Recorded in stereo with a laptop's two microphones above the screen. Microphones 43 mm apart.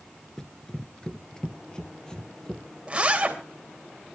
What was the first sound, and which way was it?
Running footsteps, 10° left (ahead or behind).